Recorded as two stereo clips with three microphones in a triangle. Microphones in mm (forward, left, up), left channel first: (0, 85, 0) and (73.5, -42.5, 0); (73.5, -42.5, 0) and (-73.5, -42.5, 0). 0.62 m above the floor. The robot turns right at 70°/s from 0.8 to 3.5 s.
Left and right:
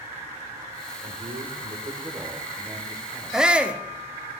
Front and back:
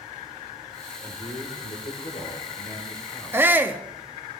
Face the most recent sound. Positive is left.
turn(degrees=-130)